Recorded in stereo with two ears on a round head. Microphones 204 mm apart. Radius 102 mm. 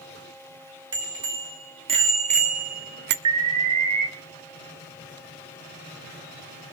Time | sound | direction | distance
0.9 | a bicycle bell | 20° right (ahead or behind) | 3.5 m
3.2 | an alarm | 80° right | 2.5 m